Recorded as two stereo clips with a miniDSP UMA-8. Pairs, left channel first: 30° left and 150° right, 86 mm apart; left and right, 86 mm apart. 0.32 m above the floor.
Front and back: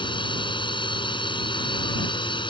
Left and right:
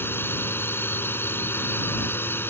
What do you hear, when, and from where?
0.0 s a drone: 25° left